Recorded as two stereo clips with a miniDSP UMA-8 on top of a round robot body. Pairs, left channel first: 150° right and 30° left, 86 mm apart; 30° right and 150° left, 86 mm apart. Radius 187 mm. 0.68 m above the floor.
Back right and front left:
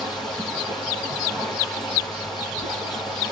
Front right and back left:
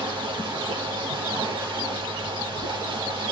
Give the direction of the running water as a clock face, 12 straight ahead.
6 o'clock.